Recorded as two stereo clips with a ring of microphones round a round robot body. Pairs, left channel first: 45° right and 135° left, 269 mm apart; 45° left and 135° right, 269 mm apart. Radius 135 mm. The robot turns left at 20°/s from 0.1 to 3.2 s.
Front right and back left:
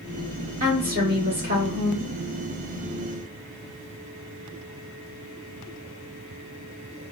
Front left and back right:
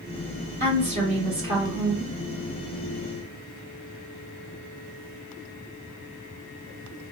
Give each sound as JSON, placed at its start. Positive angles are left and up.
{"t": 0.6, "sound": "a woman speaking", "azimuth_deg": 180, "distance_m": 1.6}